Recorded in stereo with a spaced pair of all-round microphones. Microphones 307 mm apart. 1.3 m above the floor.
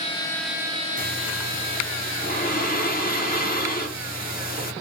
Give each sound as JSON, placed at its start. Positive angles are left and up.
{"t": 1.0, "sound": "breathing", "side_deg": 30, "distance_m": 0.8}